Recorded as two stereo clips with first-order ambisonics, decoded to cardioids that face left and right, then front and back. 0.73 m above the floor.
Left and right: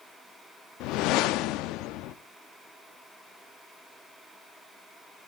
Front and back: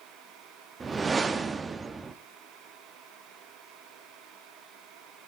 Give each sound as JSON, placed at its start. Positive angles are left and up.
{"t": 0.8, "sound": "a whoosh", "azimuth_deg": 110, "distance_m": 0.7}